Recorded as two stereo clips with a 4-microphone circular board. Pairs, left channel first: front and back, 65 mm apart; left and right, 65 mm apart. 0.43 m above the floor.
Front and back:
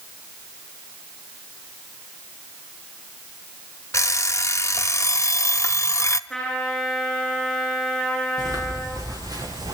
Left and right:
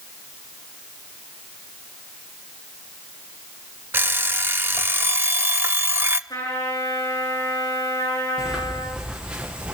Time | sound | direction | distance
3.9 | an alarm clock | 40° right | 0.7 m
6.3 | a trumpet | 85° left | 8.5 m
8.4 | footsteps | 170° right | 7 m